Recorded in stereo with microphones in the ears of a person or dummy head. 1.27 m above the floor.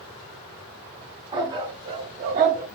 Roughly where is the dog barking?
Right.